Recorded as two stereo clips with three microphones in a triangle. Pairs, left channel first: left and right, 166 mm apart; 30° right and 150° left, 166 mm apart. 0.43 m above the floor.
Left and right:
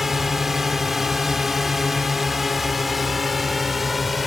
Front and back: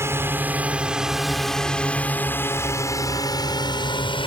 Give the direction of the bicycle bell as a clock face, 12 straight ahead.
No bicycle bell in this recording.